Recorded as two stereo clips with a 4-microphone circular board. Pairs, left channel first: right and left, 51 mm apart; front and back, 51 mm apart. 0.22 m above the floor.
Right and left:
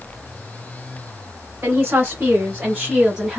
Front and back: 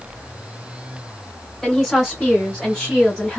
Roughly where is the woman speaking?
Left.